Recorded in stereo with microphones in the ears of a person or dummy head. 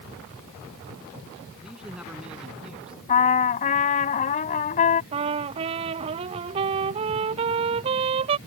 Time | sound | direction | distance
1.6 | a man speaking | 5° right (ahead or behind) | ?
3.1 | a trumpet | 40° left (ahead or behind) | ?
5.1 | a trumpet | 30° right (ahead or behind) | ?